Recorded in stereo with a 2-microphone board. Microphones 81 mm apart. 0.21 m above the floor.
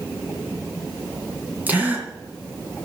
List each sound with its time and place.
1.7 s a gasp: 20° right (ahead or behind), 2 m